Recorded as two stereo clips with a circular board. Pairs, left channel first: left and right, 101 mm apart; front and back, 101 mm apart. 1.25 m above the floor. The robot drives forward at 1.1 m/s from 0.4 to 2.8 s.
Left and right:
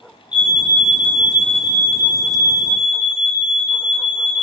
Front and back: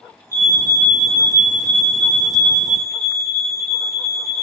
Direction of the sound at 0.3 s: 125° left.